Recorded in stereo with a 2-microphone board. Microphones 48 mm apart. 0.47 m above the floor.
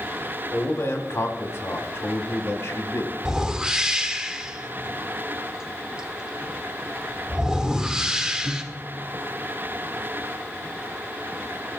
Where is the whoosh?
15° right (ahead or behind), 1.4 m.